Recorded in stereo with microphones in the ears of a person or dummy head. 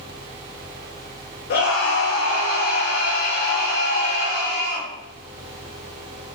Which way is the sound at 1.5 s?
60° left (ahead or behind).